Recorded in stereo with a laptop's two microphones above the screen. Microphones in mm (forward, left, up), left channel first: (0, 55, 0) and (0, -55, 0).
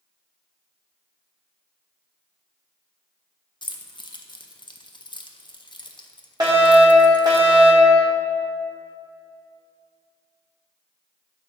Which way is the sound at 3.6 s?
45° left (ahead or behind).